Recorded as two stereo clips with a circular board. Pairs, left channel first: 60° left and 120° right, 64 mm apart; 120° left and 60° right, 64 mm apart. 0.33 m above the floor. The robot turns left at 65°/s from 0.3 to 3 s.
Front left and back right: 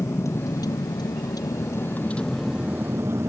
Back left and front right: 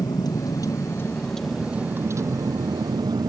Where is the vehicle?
105° left; by 3.3 s 70° right.